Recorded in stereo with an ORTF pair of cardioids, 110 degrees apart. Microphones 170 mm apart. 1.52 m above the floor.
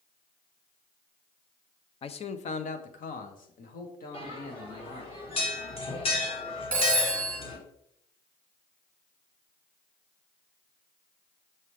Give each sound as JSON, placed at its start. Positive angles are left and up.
{"t": 2.0, "sound": "a man speaking", "azimuth_deg": 35, "distance_m": 0.6}
{"t": 4.1, "sound": "a bell", "azimuth_deg": 35, "distance_m": 1.7}
{"t": 6.7, "sound": "a phone ringing", "azimuth_deg": 5, "distance_m": 1.8}